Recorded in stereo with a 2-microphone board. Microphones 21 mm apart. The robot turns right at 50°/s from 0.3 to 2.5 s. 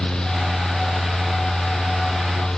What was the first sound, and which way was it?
Only background noise.